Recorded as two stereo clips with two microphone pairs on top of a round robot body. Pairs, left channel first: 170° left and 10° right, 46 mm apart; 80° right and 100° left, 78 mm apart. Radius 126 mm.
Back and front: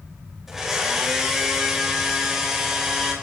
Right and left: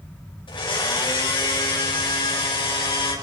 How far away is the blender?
About 5 m.